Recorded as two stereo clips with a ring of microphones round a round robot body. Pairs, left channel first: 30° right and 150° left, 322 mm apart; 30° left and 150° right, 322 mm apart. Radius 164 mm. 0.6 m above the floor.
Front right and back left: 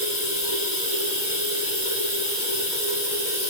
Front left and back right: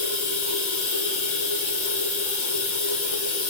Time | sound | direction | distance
0.0 | running water | 65° left | 1.7 m